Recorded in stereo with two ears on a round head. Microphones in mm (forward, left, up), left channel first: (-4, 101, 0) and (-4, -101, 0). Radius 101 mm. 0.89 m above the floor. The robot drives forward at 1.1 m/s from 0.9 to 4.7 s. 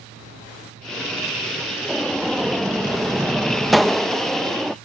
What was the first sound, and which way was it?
A gunshot, centre (ahead or behind).